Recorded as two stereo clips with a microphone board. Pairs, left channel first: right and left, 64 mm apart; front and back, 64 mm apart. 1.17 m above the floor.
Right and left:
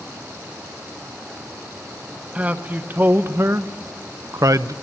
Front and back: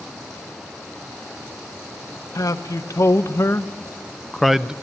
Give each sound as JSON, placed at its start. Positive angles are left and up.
{"t": 2.4, "sound": "a man speaking", "azimuth_deg": 25, "distance_m": 1.3}